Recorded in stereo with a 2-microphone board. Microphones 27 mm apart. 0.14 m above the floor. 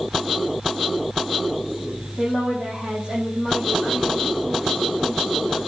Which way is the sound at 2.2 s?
50° right (ahead or behind).